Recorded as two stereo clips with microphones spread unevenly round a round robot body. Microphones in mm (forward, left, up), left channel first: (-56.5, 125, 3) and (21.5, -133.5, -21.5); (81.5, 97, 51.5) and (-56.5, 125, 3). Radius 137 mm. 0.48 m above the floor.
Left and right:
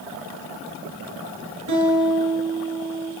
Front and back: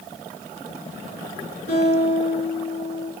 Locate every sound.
1.7 s a guitar: 50° right, 5 m